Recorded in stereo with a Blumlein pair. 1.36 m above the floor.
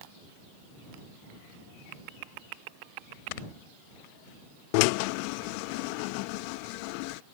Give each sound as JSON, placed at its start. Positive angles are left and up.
{"t": 3.3, "sound": "snoring", "azimuth_deg": 45}
{"t": 4.7, "sound": "a drill", "azimuth_deg": 45}